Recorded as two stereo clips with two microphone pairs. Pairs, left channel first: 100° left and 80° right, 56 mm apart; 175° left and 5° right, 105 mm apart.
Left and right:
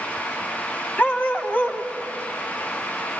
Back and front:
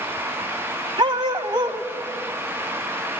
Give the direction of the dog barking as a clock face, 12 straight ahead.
11 o'clock.